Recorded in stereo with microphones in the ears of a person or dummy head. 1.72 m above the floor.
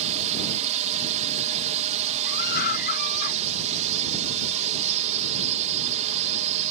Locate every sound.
0.0 s a drone: 35° right (ahead or behind)
2.2 s a scream: 55° left (ahead or behind)